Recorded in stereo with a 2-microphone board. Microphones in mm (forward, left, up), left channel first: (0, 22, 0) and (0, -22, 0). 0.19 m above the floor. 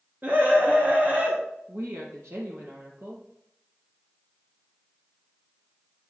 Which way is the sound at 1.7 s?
75° right (ahead or behind).